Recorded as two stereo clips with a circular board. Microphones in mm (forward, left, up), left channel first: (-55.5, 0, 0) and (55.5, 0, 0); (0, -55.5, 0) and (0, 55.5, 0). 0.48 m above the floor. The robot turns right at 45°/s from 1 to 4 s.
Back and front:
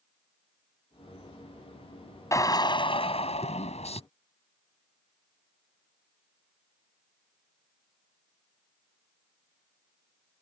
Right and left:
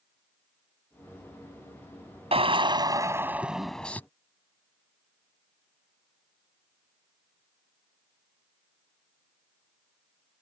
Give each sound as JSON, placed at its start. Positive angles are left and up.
{"t": 2.3, "sound": "a drill", "azimuth_deg": 120}